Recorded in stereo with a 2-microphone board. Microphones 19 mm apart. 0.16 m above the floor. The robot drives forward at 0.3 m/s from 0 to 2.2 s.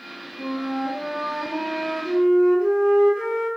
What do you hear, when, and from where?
0.4 s a flute: 60° right (ahead or behind), 2 m; by 3.5 s 70° right (ahead or behind), 1.9 m